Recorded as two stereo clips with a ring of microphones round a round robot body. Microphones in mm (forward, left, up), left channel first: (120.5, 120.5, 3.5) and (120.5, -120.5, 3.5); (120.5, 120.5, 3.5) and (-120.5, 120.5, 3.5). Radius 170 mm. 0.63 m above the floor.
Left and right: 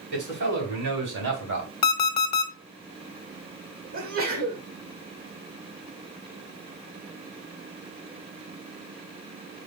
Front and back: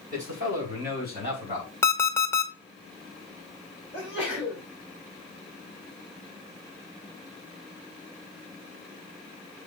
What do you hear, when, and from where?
0.1 s a man speaking: 115° right, 4 m; by 1.7 s 105° right, 3.5 m
1.8 s an alarm clock: 80° left, 0.8 m
3.9 s a sneeze: 100° right, 1.7 m